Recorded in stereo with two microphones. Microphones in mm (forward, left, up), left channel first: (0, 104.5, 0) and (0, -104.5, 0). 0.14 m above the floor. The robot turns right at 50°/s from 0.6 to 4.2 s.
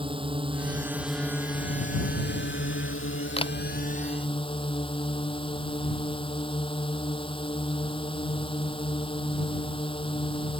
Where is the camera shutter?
30° left (ahead or behind); by 3.5 s 20° left (ahead or behind).